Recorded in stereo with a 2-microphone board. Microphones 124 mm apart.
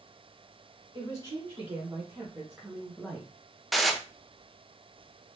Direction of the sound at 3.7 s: Centre (ahead or behind).